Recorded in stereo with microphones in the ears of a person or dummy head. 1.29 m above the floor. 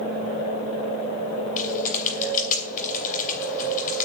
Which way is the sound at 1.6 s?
50° left (ahead or behind).